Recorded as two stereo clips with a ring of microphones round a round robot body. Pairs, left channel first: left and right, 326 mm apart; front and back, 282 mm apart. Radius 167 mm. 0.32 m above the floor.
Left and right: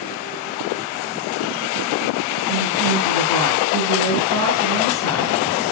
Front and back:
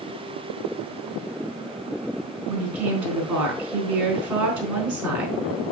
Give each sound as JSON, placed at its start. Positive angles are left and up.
{"t": 2.5, "sound": "a woman speaking", "azimuth_deg": 170, "distance_m": 4.5}